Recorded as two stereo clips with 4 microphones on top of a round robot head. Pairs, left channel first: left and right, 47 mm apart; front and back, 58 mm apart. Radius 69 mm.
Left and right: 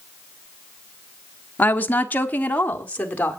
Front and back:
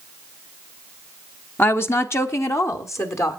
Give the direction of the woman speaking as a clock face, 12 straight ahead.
10 o'clock.